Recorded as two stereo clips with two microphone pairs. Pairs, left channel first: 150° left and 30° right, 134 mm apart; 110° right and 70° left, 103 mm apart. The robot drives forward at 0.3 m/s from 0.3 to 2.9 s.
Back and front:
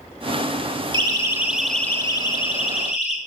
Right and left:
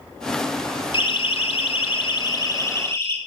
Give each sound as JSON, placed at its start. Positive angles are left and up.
{"t": 0.9, "sound": "a siren", "azimuth_deg": -80, "distance_m": 2.0}